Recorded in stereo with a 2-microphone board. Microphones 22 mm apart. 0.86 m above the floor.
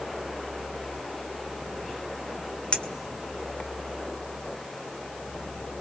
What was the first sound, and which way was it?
A clink, 55° left (ahead or behind).